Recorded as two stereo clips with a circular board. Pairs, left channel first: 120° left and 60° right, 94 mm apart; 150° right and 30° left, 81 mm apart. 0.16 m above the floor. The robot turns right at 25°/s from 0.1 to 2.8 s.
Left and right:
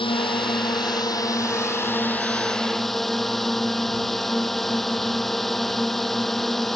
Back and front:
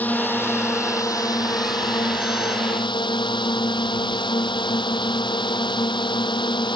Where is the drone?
140° left; by 6.8 s 150° right.